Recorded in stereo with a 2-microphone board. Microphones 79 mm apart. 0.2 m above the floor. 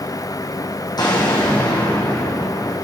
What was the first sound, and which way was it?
An explosion, 65° left (ahead or behind).